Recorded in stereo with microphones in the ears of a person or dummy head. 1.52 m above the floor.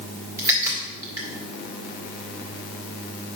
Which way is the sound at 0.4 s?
20° right (ahead or behind).